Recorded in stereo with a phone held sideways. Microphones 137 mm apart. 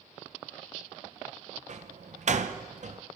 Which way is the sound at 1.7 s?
60° right (ahead or behind).